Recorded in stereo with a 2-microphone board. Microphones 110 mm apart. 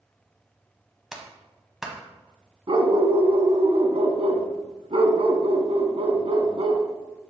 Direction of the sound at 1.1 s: 5° right (ahead or behind).